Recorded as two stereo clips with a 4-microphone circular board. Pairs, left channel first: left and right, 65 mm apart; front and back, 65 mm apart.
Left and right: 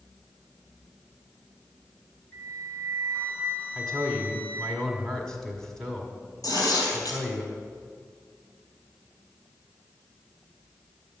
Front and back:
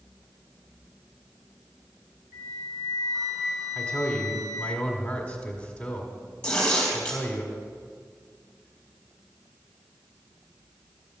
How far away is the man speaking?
About 1.7 m.